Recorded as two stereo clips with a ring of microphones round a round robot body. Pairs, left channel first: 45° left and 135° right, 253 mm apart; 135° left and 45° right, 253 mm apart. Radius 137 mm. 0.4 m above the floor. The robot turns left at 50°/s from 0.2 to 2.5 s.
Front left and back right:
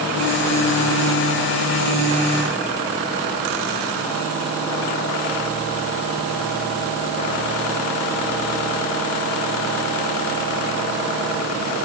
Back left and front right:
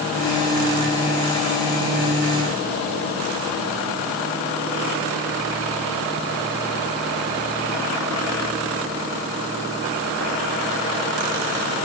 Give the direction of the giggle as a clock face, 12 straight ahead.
I don't hear a giggle.